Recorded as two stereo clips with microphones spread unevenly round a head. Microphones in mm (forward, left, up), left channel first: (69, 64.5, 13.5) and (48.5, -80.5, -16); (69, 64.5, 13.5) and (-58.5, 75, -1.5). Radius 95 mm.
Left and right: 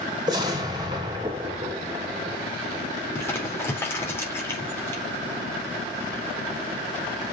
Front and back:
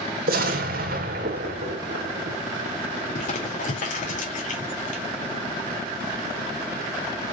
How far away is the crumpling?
About 4 m.